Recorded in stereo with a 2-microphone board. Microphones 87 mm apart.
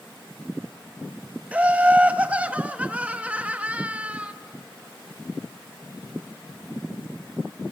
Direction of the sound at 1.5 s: 15° right (ahead or behind).